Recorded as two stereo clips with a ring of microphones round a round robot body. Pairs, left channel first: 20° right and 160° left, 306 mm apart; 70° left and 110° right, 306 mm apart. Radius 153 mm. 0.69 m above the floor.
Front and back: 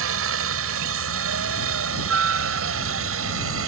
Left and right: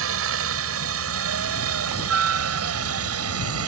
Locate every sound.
0.0 s a helicopter: 155° right